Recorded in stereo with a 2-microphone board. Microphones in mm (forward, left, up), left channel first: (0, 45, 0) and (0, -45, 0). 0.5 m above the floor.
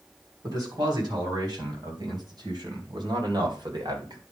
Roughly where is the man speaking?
Right.